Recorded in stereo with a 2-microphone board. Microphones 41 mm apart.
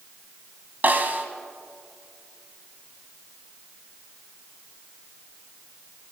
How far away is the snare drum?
About 1.7 m.